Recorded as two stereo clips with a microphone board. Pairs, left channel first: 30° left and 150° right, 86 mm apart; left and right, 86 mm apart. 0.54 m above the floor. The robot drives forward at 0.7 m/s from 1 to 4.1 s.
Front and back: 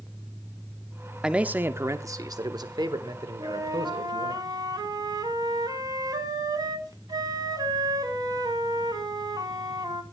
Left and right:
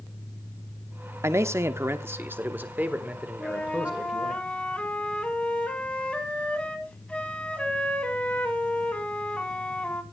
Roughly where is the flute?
Behind.